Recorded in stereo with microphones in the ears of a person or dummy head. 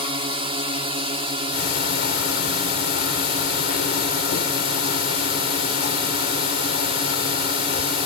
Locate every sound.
0.0 s a drone: 30° right (ahead or behind)
1.5 s ticking: 60° left (ahead or behind)